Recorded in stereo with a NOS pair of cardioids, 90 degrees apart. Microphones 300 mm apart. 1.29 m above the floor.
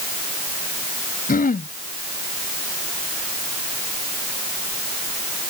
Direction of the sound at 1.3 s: 30° left.